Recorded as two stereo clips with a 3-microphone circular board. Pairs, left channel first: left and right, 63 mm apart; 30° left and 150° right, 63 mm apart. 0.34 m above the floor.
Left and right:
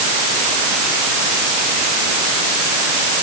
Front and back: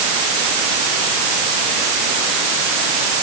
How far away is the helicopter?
No helicopter in this recording.